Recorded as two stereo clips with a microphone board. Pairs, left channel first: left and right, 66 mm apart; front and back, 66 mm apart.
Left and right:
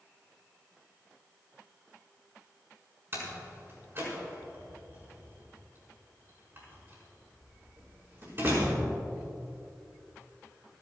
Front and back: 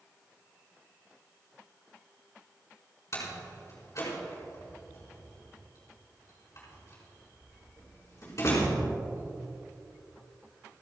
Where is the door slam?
40° right, 5.5 m.